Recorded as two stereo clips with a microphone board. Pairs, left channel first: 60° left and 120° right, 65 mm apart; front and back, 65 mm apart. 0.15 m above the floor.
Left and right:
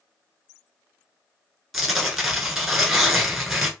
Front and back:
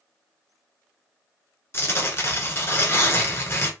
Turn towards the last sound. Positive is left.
turn(degrees=-35)